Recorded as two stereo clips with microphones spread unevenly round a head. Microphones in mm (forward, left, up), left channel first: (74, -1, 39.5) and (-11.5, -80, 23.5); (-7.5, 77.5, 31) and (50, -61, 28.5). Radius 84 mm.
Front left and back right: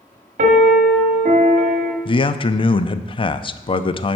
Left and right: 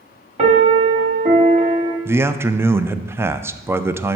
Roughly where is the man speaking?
Ahead.